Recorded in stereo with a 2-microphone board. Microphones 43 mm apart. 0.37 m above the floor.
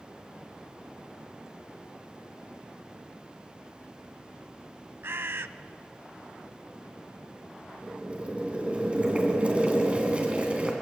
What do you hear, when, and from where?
5.0 s a bird: 70° right (ahead or behind), 0.5 m
7.8 s boiling: 25° right (ahead or behind), 3 m